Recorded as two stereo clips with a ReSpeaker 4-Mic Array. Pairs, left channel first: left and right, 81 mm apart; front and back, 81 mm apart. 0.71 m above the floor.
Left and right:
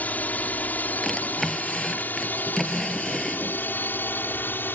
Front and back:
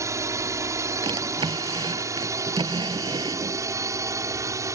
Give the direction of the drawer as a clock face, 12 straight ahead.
6 o'clock.